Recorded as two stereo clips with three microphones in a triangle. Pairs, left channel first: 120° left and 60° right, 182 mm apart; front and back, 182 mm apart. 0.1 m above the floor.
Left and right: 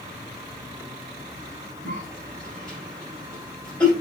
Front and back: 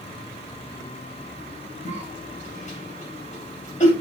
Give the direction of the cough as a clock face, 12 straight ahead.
11 o'clock.